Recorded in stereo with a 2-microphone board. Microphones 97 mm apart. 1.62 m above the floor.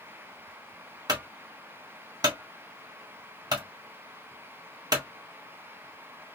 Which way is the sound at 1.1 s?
45° right (ahead or behind).